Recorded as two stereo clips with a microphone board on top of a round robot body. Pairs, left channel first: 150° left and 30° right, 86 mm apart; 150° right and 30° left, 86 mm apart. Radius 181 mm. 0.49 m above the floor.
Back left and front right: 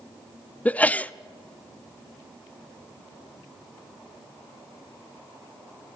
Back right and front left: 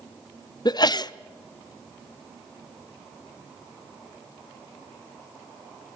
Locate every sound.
0.7 s a sneeze: 140° right, 0.9 m